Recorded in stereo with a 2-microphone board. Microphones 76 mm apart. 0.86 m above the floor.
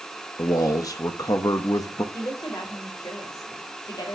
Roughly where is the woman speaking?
Left.